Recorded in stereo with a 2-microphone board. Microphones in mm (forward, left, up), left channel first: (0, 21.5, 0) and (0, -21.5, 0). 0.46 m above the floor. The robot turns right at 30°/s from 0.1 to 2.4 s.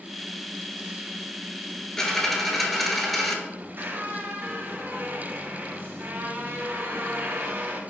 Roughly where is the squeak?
Right.